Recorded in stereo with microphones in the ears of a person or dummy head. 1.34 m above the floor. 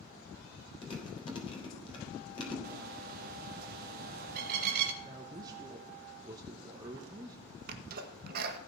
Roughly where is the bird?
Right.